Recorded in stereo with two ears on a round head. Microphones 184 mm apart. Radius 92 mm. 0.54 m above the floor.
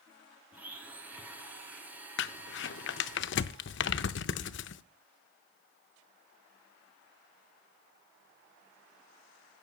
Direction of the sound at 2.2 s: 60° left (ahead or behind).